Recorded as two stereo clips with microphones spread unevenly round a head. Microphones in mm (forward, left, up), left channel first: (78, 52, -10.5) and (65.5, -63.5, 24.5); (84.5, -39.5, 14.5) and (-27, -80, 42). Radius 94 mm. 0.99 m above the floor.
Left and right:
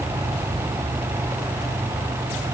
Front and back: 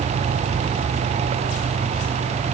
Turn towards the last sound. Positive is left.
No sound to turn to.